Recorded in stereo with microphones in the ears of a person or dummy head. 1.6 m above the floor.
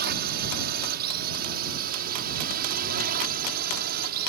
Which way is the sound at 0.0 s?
50° right (ahead or behind).